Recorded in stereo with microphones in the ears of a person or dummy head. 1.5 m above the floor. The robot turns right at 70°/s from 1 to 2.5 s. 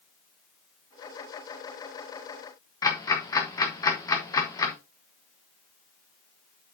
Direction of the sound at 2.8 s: 15° left (ahead or behind).